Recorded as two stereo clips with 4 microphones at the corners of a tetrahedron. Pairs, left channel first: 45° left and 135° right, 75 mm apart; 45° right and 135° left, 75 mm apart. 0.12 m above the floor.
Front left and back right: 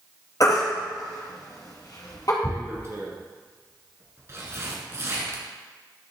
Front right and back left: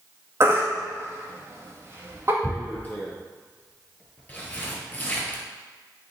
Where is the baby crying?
85° left, 2 m.